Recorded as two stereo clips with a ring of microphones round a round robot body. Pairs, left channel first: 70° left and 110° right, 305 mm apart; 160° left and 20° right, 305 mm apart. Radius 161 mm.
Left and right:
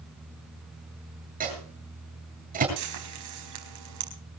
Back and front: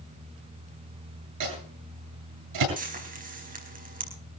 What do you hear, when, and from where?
1.4 s a microwave: 50° right, 8.5 m
2.8 s frying: 85° right, 4.5 m